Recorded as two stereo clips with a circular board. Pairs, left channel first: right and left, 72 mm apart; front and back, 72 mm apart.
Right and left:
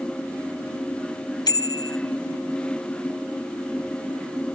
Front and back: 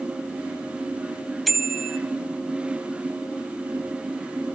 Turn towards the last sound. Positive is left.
turn(degrees=-90)